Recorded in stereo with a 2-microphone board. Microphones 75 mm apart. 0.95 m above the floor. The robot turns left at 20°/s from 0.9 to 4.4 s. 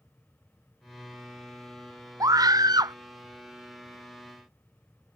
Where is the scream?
50° right (ahead or behind); by 3.0 s 60° right (ahead or behind).